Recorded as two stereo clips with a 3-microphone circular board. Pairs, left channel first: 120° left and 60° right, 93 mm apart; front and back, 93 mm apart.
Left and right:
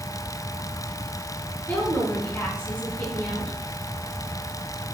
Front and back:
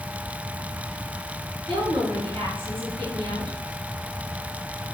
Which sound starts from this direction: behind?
A woman speaking, at 1.7 s.